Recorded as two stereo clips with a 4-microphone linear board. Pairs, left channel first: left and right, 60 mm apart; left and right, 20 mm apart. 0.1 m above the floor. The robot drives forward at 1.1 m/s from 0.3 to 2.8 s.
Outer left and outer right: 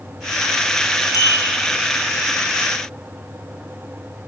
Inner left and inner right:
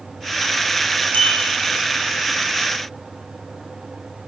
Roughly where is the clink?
Left.